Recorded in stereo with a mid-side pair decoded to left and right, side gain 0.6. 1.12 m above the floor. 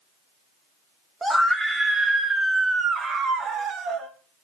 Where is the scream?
10° right, 1.6 m; by 4.1 s 55° right, 2 m.